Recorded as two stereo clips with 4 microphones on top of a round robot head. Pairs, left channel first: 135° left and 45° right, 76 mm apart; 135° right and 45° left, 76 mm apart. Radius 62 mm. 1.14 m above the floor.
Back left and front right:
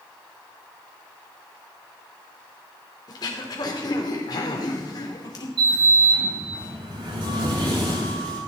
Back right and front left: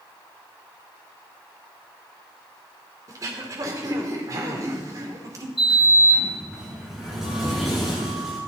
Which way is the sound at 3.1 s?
95° left.